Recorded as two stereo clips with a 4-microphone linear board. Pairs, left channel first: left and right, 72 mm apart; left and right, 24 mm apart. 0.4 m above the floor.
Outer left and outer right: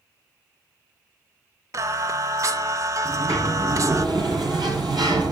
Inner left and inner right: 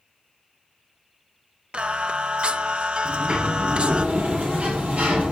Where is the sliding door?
75° right (ahead or behind), 7.5 m.